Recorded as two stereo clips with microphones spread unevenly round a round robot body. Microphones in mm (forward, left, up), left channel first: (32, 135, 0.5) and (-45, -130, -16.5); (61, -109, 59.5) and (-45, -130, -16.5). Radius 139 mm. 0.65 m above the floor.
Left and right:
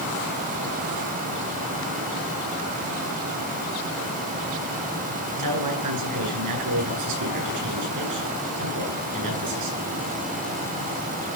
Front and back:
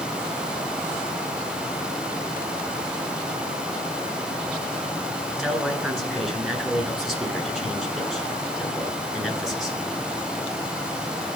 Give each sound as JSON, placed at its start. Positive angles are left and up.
{"t": 5.4, "sound": "a man speaking", "azimuth_deg": -80, "distance_m": 9.5}